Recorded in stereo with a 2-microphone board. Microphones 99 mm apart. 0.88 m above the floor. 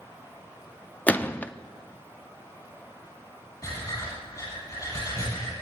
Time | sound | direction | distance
1.1 | a gunshot | 15° left (ahead or behind) | 0.5 m
3.6 | breathing | 35° left (ahead or behind) | 9.5 m